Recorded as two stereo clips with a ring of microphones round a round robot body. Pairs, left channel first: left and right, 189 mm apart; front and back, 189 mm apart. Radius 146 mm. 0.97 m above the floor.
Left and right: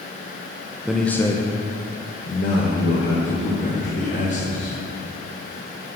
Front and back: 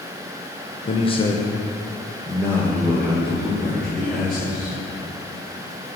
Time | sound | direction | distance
0.8 | a man speaking | 10° right | 0.9 m